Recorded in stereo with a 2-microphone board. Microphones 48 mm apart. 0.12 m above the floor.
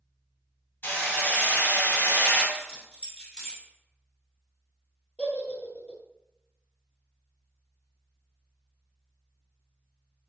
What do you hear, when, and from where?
0.8 s hammering: 50° left (ahead or behind), 1.9 m
2.5 s keys jangling: 15° left (ahead or behind), 1.2 m
5.2 s a giggle: 30° left (ahead or behind), 0.9 m